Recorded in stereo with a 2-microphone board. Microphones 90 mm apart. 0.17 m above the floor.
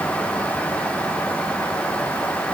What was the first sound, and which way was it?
Only background noise.